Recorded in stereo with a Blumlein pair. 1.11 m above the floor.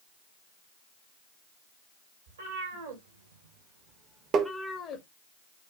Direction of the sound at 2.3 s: 70° right.